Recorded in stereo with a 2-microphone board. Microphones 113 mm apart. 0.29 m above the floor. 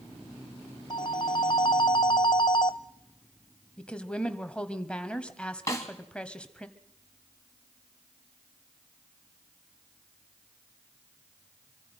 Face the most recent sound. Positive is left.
turn(degrees=25)  # may be behind; listen again after turning